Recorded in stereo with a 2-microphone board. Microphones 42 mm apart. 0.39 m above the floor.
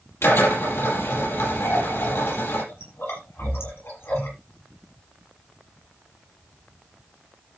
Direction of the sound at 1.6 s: 75° left (ahead or behind).